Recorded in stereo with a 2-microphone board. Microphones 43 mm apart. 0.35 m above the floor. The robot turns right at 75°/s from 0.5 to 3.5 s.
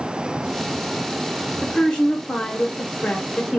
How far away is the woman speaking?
About 0.9 m.